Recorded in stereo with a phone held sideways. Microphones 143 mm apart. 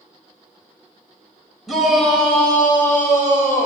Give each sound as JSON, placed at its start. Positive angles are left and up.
{"t": 1.7, "sound": "a shout", "side_deg": 0, "distance_m": 4.0}